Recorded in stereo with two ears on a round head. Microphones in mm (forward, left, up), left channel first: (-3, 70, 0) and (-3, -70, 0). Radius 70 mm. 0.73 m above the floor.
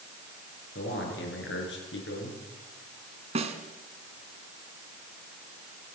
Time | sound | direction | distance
0.8 | a man speaking | 85° left | 9 m
3.4 | a snare drum | 40° right (ahead or behind) | 2.5 m